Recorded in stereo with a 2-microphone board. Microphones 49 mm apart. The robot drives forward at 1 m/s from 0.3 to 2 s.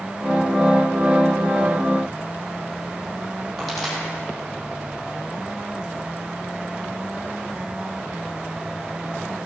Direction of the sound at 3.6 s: Centre (ahead or behind).